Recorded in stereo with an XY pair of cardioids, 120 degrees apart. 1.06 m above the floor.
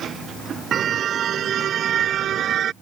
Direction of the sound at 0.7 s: 45° right.